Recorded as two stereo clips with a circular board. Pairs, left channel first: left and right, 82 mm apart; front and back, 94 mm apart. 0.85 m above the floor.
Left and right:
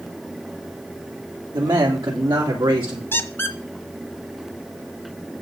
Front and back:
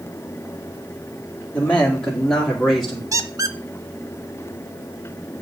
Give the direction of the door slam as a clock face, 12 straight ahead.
No door slam in this recording.